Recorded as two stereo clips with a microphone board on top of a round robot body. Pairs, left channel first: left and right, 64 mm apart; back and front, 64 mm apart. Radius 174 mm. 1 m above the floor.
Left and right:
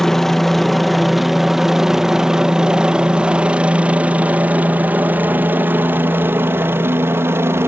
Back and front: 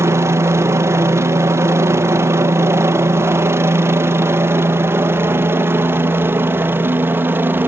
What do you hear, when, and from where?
0.0 s a helicopter: 5° left; by 7.7 s 50° right